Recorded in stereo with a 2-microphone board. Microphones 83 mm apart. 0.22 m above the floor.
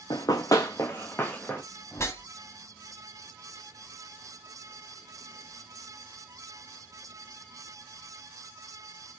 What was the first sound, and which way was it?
Running footsteps, 55° left (ahead or behind).